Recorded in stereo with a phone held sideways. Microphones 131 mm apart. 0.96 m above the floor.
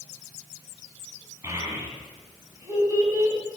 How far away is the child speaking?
About 7.5 m.